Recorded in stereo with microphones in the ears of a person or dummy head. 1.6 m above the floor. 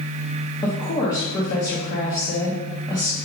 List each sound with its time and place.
0.6 s a woman speaking: 15° left (ahead or behind), 0.8 m